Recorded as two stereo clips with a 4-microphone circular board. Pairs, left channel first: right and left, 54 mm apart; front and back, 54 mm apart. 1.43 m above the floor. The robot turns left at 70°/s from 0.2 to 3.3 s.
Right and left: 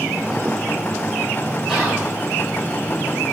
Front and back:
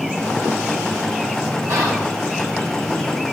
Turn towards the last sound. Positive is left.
turn(degrees=60)